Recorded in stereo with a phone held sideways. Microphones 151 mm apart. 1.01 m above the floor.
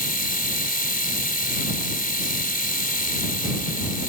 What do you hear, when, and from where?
0.0 s a machine running: 85° left